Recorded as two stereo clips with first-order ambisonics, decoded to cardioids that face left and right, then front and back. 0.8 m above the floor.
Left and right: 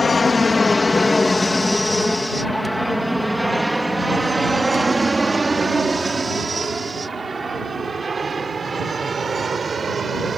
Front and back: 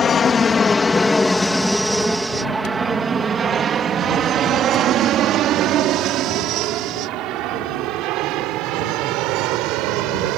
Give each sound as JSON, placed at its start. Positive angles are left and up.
{"t": 0.0, "sound": "an aircraft", "azimuth_deg": 30}